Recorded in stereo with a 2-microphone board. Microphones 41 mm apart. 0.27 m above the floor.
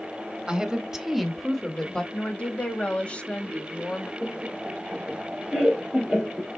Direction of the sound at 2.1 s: 30° left (ahead or behind).